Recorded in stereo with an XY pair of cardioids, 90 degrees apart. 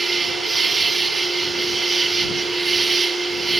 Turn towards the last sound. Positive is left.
turn(degrees=-35)